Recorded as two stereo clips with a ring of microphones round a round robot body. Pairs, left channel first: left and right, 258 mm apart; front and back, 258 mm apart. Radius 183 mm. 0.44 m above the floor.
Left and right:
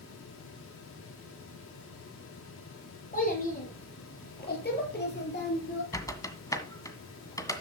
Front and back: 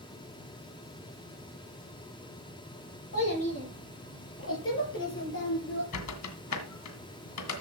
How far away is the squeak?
About 1.9 m.